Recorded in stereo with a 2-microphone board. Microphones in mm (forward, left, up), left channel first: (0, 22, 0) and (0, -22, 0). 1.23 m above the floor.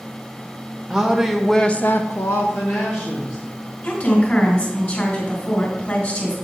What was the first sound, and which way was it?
A woman speaking, 10° right (ahead or behind).